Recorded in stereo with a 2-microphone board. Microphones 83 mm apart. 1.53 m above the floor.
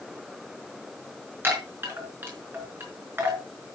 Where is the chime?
30° right (ahead or behind), 4.5 m.